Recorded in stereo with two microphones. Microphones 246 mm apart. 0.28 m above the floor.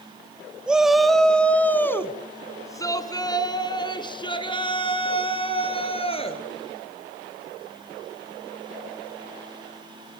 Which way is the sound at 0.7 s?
5° right (ahead or behind).